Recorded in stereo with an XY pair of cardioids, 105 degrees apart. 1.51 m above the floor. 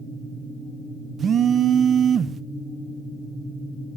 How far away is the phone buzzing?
About 0.8 m.